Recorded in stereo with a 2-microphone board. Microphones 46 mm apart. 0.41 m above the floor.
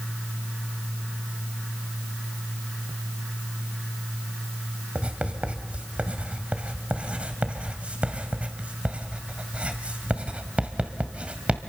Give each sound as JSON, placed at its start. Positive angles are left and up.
{"t": 5.0, "sound": "writing", "side_deg": -30, "distance_m": 1.9}